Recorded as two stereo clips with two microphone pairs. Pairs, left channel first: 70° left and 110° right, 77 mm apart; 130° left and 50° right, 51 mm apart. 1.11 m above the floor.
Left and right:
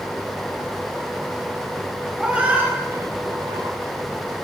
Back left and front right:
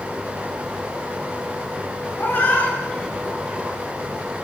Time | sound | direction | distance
2.2 | a cat meowing | 170° left | 2 m